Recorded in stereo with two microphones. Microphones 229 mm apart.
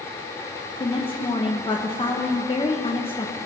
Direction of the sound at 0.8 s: 25° left (ahead or behind).